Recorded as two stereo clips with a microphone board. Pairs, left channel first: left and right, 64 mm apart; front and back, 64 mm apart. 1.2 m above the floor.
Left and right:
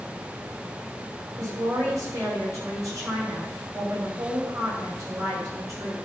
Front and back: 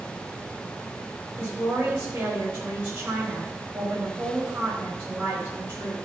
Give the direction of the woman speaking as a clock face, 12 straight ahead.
4 o'clock.